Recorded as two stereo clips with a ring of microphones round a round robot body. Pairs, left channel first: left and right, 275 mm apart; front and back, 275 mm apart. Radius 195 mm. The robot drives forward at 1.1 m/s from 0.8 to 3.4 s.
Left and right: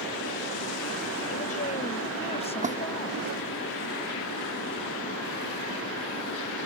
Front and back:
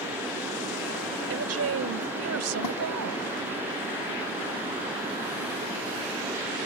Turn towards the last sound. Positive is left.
turn(degrees=-30)